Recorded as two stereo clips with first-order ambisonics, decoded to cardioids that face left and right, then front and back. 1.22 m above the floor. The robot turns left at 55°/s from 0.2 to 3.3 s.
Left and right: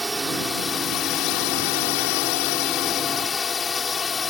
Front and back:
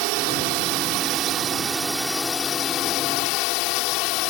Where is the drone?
170° right; by 4.3 s 20° left.